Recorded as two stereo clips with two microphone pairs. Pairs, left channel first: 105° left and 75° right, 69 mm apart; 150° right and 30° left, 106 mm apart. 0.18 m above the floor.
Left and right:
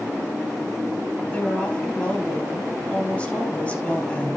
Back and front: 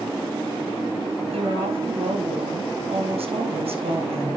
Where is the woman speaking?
35° left, 4 m.